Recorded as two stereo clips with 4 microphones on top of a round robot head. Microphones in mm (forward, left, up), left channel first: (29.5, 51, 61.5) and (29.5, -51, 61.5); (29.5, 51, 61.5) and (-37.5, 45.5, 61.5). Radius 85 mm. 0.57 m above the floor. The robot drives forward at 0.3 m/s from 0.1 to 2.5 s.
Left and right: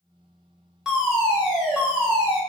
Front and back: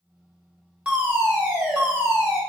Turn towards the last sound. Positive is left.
turn(degrees=-175)